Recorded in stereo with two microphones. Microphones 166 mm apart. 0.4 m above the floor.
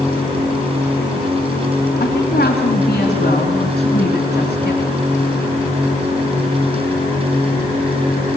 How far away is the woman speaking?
About 3 m.